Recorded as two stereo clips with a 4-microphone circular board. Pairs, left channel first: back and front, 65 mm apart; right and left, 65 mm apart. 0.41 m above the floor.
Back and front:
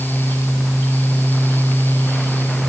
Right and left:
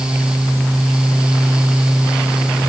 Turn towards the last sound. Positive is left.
No sound to turn to.